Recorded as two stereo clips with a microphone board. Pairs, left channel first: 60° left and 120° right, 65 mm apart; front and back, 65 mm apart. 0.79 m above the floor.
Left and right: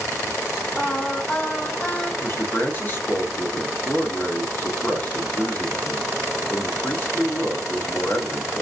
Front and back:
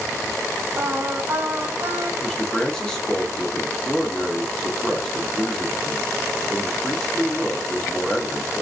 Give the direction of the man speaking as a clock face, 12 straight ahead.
10 o'clock.